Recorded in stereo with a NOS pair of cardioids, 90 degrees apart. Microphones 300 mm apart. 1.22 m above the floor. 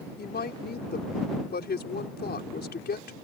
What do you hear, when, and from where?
0.2 s a woman speaking: 35° left